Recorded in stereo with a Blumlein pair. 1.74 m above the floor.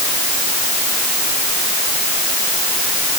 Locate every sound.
Only background noise.